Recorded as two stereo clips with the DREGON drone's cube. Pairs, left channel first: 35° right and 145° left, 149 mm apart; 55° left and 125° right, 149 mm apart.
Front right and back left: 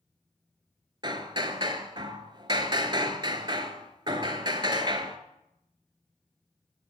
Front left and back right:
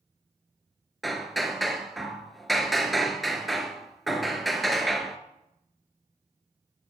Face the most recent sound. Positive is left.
turn(degrees=145)